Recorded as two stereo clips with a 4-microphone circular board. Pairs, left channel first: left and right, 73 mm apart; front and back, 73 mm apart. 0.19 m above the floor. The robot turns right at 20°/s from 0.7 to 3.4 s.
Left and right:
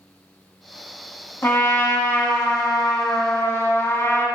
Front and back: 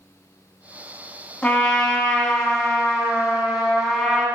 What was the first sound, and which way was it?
A trumpet, 60° left.